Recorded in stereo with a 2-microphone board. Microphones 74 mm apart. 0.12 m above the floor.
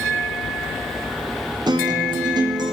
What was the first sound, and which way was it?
A guitar, 75° right (ahead or behind).